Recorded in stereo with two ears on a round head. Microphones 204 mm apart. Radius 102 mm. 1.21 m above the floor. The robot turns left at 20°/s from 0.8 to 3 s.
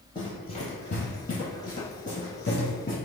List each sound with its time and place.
0.1 s running footsteps: 20° left (ahead or behind), 1.2 m